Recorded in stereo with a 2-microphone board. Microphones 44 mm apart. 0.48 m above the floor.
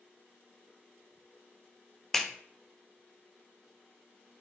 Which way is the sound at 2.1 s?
10° left (ahead or behind).